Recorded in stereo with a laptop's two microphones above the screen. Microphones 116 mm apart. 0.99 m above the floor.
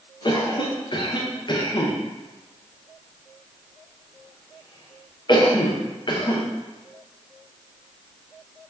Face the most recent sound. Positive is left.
turn(degrees=45)  # may be behind; listen again after turning